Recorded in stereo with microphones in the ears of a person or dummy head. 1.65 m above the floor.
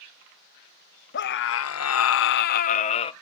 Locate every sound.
1.1 s a scream: 55° left (ahead or behind), 0.7 m; by 3.1 s 30° left (ahead or behind), 0.8 m